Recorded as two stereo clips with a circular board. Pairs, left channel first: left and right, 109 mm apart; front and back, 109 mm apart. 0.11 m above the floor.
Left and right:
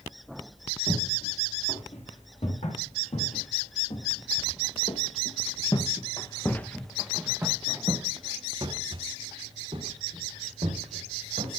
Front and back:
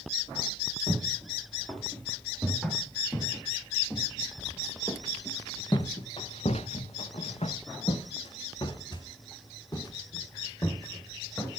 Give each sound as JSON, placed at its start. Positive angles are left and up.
{"t": 0.9, "sound": "footsteps", "azimuth_deg": 90, "distance_m": 4.5}